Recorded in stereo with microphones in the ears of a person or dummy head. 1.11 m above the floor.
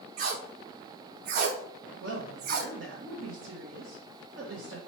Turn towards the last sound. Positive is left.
turn(degrees=-75)  # may be behind; listen again after turning